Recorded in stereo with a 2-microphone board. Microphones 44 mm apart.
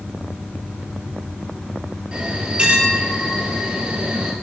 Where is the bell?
25° right (ahead or behind), 2.5 m.